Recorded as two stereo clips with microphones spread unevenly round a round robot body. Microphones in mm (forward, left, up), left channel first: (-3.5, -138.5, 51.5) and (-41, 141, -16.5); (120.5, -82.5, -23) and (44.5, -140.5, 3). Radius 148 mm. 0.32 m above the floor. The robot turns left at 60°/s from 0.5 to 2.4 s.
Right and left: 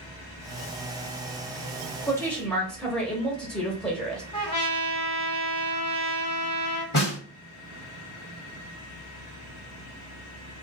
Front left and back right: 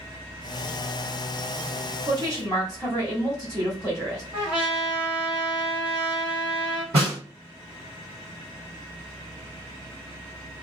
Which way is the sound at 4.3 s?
160° right.